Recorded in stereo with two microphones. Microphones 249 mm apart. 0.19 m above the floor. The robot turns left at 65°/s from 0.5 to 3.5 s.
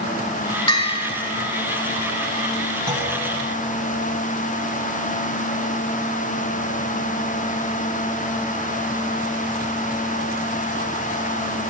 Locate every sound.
0.7 s a bell: 20° left (ahead or behind), 1.0 m
2.9 s a clunk: 20° right (ahead or behind), 1.3 m; by 3.1 s 35° right (ahead or behind), 1.3 m